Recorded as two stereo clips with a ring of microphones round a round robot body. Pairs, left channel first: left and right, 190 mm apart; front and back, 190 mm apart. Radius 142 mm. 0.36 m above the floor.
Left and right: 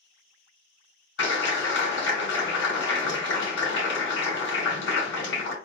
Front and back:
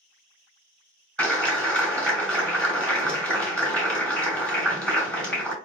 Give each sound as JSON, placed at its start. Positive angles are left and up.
{"t": 1.2, "sound": "a clap", "azimuth_deg": 85, "distance_m": 3.0}